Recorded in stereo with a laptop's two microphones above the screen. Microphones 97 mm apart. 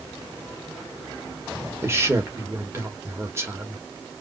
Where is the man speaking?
25° right (ahead or behind), 1.0 m.